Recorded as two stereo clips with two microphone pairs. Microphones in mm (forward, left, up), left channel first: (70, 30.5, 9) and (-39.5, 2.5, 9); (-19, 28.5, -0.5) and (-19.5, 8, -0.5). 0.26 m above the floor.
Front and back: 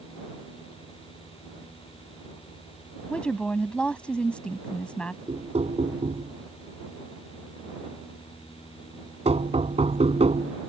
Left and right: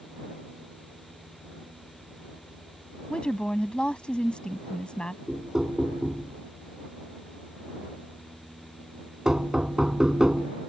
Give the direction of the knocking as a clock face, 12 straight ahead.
5 o'clock.